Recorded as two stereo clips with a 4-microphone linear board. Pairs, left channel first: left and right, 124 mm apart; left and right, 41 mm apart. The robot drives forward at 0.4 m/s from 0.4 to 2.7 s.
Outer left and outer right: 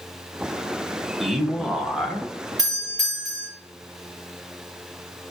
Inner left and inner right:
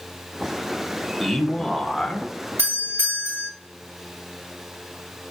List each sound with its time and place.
1.2 s a man speaking: centre (ahead or behind), 0.9 m
2.6 s a doorbell: 75° right (ahead or behind), 2.5 m